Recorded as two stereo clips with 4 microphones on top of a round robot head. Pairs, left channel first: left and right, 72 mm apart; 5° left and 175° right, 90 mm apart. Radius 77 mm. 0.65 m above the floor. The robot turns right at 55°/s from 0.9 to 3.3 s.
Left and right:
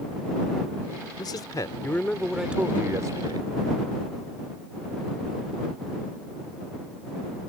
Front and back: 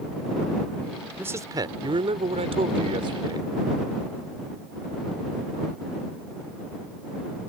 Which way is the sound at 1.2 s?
120° left.